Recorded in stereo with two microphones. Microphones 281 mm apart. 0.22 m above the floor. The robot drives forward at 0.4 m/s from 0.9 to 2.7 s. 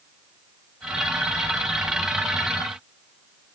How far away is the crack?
No crack in this recording.